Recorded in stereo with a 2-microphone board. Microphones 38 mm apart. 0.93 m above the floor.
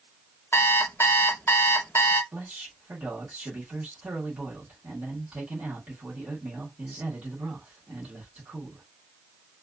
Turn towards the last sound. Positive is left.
turn(degrees=-40)  # may be behind; listen again after turning